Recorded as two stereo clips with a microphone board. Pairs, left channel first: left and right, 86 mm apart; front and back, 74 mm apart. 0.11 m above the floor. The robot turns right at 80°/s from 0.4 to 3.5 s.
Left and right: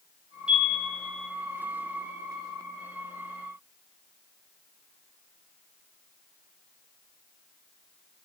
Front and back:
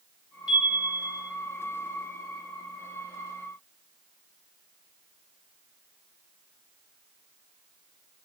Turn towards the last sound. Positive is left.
turn(degrees=-130)